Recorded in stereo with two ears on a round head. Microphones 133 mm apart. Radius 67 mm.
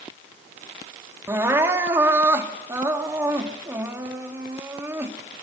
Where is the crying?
15° right (ahead or behind), 2.5 m.